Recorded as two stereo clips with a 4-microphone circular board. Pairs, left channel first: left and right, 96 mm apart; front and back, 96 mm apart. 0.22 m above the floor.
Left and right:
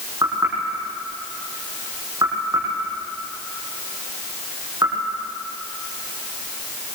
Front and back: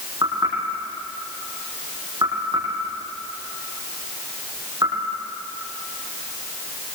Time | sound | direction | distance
0.2 | knocking | 140° right | 8.5 m